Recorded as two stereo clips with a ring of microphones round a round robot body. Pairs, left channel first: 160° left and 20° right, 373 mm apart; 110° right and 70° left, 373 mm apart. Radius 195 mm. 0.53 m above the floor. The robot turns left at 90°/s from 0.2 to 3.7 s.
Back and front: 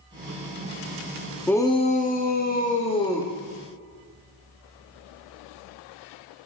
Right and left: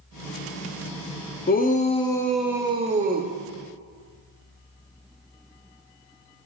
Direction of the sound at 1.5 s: 120° right.